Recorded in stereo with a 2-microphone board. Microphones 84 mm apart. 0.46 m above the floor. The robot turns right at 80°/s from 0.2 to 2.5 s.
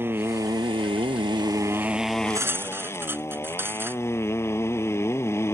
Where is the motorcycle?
155° right; by 5.6 s 30° left.